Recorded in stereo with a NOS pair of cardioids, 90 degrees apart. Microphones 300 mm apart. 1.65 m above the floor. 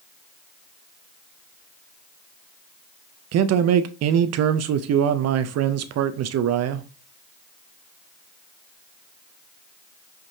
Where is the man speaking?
60° right, 0.5 m.